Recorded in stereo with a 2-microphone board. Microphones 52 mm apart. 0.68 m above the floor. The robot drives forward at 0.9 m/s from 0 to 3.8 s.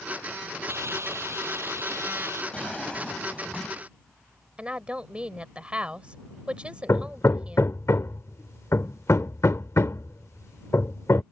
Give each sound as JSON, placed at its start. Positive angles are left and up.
{"t": 0.7, "sound": "a hiss", "side_deg": -60}
{"t": 2.5, "sound": "a drawer", "side_deg": 20}
{"t": 4.6, "sound": "a woman speaking", "side_deg": -25}
{"t": 6.9, "sound": "hammering", "side_deg": 65}